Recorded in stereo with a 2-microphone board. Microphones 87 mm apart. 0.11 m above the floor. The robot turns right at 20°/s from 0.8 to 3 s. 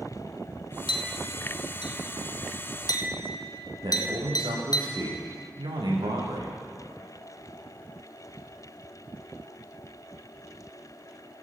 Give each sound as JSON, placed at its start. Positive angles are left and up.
{"t": 0.9, "sound": "a clink", "side_deg": 70, "distance_m": 2.0}
{"t": 3.8, "sound": "a man speaking", "side_deg": -70, "distance_m": 9.5}